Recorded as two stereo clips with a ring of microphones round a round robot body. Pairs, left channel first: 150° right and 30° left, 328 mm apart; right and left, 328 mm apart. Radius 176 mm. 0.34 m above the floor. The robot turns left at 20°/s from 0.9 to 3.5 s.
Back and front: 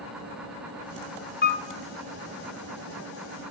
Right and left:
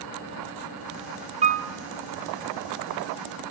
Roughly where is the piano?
Behind left.